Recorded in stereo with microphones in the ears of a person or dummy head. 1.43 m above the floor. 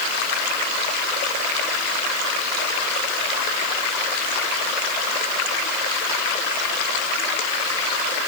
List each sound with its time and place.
Only background noise.